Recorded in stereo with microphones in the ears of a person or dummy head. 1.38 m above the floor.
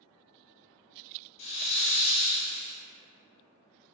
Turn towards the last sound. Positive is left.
turn(degrees=30)  # may be behind; listen again after turning